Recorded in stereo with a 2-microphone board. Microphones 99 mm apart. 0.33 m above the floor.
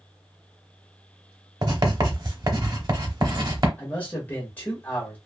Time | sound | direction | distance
1.6 | writing | 50° right (ahead or behind) | 0.8 m
3.8 | a man speaking | 20° left (ahead or behind) | 0.8 m